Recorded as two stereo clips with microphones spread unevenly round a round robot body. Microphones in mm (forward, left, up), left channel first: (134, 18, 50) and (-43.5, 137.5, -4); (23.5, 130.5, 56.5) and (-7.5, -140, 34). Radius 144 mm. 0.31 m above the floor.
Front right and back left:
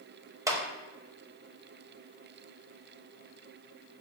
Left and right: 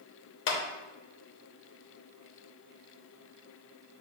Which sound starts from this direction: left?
A clap, at 0.5 s.